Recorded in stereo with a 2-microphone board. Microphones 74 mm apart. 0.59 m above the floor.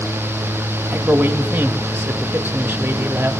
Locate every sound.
0.9 s a man speaking: 25° right (ahead or behind), 0.9 m